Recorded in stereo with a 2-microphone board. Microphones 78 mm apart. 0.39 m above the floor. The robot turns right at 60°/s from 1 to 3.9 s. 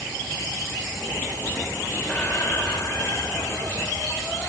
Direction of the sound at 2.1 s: 30° left.